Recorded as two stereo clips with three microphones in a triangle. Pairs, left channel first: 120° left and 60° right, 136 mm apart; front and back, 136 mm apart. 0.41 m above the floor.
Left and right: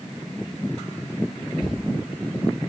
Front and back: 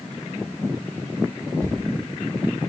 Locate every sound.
1.6 s a door slam: 110° right, 8.5 m